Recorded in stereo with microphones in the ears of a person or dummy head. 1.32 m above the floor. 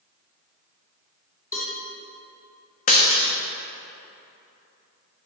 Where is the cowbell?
15° left (ahead or behind), 3 m.